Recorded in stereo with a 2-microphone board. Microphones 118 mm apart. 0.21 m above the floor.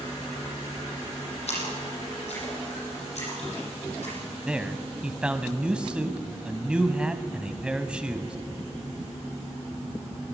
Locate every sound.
1.5 s a splash: 65° left (ahead or behind), 9 m
4.5 s a man speaking: 10° right (ahead or behind), 1.3 m